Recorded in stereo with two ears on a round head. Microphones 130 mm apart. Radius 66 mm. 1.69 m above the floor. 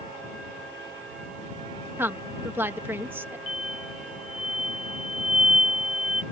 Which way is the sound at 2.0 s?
15° right (ahead or behind).